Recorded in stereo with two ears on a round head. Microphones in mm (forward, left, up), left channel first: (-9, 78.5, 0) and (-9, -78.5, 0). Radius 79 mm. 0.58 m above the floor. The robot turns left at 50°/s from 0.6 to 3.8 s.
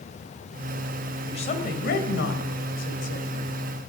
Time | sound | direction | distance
1.2 | a woman speaking | 150° left | 2.5 m